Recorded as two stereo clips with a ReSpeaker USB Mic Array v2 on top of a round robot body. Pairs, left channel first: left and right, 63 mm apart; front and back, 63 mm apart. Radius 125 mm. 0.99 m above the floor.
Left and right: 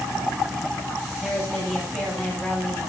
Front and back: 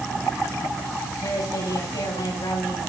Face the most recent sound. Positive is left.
turn(degrees=-10)